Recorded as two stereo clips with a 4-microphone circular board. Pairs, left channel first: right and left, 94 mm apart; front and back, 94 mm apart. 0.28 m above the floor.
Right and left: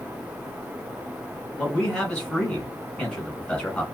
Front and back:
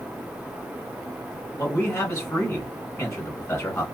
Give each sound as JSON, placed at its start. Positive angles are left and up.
{"t": 1.6, "sound": "a man speaking", "azimuth_deg": -20, "distance_m": 1.5}